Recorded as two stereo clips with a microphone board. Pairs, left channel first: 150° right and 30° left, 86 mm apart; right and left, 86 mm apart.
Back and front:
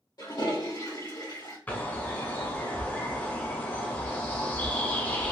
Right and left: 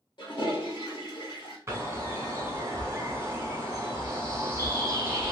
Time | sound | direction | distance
0.2 | a toilet flushing | 115° right | 1.4 m
1.7 | a bird | 145° left | 1.1 m